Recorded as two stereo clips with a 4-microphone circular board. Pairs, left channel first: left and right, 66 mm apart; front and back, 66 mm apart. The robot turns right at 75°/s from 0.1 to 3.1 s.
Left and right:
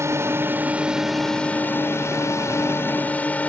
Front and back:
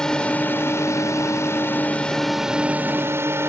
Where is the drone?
80° right; by 3.5 s 145° left.